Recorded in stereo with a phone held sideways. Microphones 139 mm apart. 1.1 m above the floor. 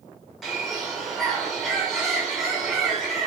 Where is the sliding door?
No sliding door in this recording.